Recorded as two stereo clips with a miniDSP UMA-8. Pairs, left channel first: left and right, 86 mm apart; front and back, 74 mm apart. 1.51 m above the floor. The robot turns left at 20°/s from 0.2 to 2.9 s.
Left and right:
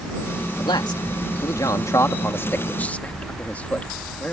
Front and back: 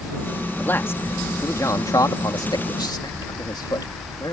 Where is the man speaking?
65° left; by 4.3 s 20° left.